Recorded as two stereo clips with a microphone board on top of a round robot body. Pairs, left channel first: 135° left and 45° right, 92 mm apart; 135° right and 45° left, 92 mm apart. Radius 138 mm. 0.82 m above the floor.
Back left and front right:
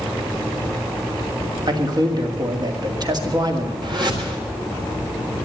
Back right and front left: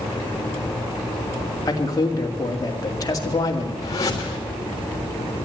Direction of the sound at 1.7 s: 85° right.